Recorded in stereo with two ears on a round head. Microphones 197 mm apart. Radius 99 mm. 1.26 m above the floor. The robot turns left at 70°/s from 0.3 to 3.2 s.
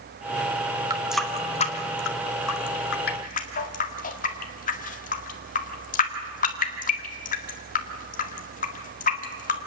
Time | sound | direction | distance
0.9 | a running tap | 20° right (ahead or behind) | 1.9 m